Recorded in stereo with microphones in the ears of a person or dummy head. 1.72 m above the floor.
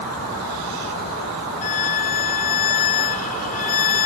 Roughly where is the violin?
Left.